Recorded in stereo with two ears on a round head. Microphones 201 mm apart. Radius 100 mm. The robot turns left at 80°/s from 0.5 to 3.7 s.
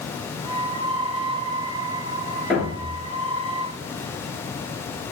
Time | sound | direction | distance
2.5 | a thud | 5° left | 7 m